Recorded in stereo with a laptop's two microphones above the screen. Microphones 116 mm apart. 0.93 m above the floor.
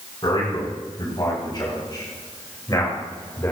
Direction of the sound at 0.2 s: 40° left (ahead or behind).